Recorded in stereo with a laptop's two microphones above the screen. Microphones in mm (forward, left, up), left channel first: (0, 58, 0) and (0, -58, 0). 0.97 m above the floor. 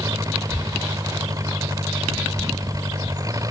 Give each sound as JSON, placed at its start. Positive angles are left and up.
{"t": 0.0, "sound": "an engine running", "side_deg": -30}